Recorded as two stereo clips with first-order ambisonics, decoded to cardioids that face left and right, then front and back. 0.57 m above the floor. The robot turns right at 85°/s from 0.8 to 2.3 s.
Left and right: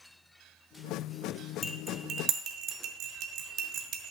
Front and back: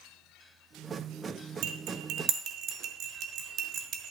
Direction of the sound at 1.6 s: 170° left.